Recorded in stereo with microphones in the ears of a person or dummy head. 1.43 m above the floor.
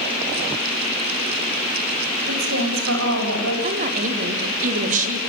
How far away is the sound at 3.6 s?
About 4 m.